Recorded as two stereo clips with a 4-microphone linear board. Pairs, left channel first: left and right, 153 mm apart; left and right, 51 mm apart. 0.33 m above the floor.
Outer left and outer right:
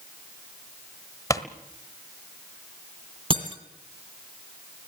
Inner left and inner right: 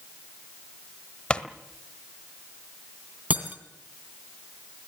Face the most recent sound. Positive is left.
turn(degrees=-35)  # may be behind; listen again after turning